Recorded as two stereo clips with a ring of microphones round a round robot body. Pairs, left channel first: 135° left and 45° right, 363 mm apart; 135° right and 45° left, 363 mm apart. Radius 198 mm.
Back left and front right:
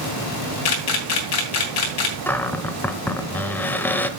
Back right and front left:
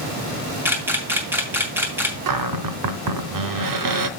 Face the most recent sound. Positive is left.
turn(degrees=50)